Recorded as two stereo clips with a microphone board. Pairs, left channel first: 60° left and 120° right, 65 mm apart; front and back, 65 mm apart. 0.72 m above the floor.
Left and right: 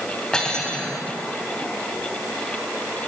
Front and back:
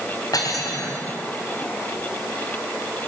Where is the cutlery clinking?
15° right, 2.5 m.